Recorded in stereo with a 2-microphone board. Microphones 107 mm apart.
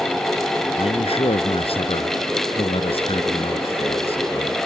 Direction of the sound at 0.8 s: 60° left (ahead or behind).